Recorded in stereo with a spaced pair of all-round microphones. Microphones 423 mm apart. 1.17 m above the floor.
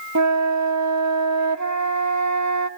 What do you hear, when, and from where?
0.1 s a flute: 40° right (ahead or behind), 0.9 m